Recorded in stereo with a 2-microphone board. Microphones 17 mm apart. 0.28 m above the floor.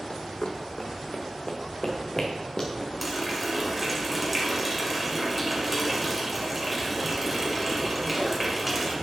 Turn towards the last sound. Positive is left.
turn(degrees=0)  # may be behind; listen again after turning